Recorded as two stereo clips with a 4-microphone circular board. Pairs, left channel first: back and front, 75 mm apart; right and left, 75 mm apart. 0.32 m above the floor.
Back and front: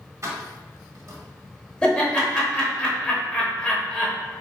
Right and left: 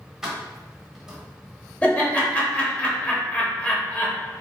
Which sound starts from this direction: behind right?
Laughter, at 1.8 s.